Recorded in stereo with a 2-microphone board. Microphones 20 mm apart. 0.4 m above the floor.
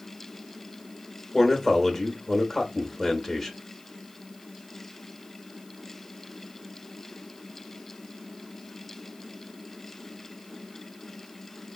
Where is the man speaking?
10° left (ahead or behind), 1.0 m.